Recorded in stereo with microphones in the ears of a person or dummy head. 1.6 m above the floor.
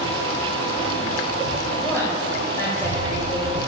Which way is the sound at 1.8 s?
15° left (ahead or behind).